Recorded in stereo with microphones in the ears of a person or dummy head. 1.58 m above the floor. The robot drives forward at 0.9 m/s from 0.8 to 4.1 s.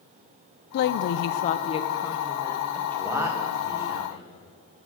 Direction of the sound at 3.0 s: 5° right (ahead or behind).